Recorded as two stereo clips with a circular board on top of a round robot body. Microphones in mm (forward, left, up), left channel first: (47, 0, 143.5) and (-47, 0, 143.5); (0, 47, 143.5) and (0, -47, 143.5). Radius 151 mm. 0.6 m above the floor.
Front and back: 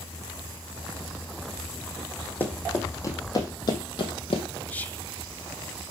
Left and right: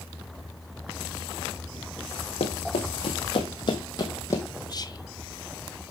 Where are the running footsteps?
70° left, 1.7 m; by 4.5 s 30° left, 1.4 m.